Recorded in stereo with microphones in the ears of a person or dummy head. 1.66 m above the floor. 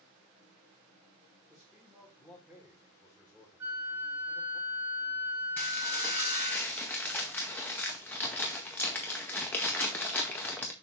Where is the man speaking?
Centre (ahead or behind), 1.6 m.